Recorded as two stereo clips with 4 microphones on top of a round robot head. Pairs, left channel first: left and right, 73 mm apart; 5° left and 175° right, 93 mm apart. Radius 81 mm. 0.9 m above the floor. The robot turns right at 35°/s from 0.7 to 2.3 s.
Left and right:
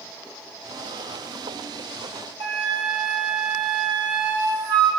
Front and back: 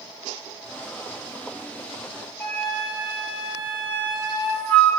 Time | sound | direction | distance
2.4 | a flute | 75° right | 2.5 m